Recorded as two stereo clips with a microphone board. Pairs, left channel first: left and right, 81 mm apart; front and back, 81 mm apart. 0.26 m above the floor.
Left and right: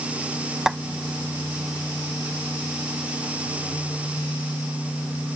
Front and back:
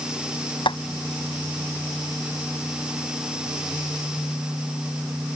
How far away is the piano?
I don't hear a piano.